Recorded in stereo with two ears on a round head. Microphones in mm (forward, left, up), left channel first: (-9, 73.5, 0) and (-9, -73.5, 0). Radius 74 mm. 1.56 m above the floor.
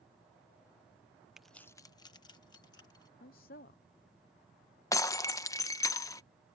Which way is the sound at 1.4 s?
5° right (ahead or behind).